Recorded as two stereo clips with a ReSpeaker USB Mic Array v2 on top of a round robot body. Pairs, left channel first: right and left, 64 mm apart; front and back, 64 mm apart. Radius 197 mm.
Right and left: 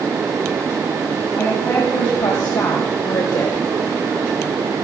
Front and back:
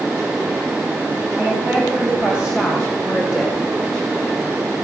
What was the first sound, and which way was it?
A woman speaking, 115° right.